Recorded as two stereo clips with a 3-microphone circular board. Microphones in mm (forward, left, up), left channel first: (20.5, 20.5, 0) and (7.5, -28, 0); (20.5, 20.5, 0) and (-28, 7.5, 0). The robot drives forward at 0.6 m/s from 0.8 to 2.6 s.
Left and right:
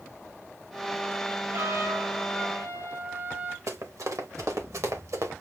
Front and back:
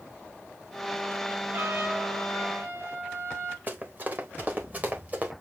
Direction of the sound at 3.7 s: 110° right.